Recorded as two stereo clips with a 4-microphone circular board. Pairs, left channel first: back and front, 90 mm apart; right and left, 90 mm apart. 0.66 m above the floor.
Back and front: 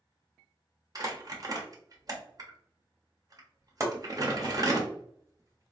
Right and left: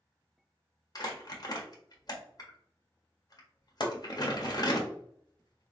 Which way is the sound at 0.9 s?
45° right.